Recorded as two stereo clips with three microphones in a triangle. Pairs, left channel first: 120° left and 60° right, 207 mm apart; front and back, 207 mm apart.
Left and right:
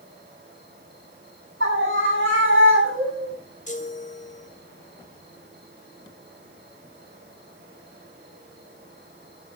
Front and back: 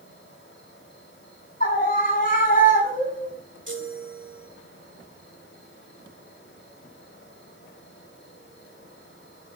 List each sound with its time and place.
0.0 s an insect: 25° right, 7.5 m
1.6 s a scream: 45° right, 9 m
3.7 s a chime: 170° left, 2 m